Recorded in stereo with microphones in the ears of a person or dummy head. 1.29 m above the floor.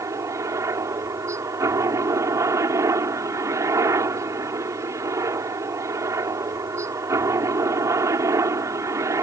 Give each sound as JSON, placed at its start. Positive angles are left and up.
{"t": 0.0, "sound": "a helicopter", "side_deg": -15}